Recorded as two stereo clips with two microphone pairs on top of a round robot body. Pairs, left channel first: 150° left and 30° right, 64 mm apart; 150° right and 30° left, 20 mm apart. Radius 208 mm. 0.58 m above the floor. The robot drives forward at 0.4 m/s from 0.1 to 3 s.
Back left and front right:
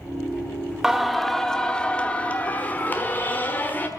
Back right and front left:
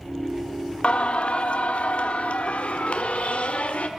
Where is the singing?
115° right, 0.8 m; by 3.9 s 150° right, 1.4 m.